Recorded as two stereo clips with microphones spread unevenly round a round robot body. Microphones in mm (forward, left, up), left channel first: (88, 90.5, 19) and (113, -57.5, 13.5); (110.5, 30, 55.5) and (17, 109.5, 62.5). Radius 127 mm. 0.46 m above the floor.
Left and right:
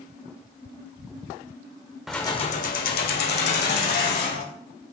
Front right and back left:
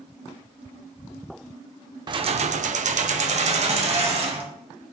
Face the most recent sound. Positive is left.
turn(degrees=100)